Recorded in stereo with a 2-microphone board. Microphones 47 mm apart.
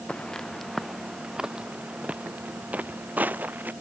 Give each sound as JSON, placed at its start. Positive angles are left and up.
{"t": 0.1, "sound": "footsteps", "side_deg": 20}